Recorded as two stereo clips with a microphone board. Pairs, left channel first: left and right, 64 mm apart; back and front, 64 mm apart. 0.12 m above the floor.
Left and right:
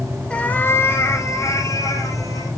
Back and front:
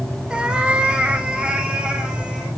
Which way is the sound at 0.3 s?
45° left.